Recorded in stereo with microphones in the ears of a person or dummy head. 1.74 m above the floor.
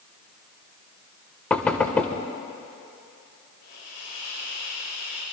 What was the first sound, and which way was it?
Knocking, 10° left (ahead or behind).